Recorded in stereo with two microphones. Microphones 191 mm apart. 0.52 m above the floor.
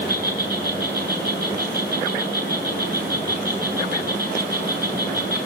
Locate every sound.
0.0 s an insect: 55° right (ahead or behind), 8.5 m